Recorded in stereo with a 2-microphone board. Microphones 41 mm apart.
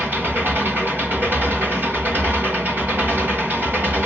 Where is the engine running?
55° right (ahead or behind), 2.5 m.